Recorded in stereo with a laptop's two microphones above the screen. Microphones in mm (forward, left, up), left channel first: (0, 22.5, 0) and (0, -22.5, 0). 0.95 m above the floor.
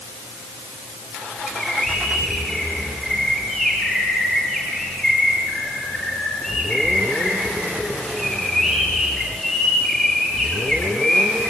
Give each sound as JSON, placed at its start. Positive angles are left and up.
{"t": 1.5, "sound": "a bird", "side_deg": 15, "distance_m": 6.5}